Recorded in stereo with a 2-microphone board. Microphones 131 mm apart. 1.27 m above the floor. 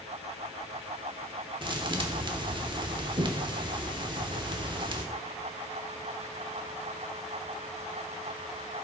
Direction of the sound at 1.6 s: 35° right (ahead or behind).